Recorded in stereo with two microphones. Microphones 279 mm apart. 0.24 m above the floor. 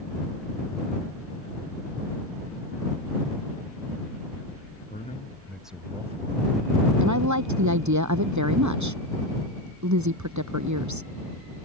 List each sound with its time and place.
4.9 s a man speaking: 30° left (ahead or behind); by 6.9 s 45° right (ahead or behind)
7.0 s a woman speaking: 75° right (ahead or behind)